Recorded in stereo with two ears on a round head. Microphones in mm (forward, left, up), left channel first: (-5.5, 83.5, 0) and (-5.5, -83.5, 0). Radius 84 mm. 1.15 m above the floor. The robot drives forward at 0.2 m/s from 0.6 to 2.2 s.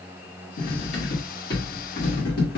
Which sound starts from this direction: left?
Cutlery clinking, at 0.6 s.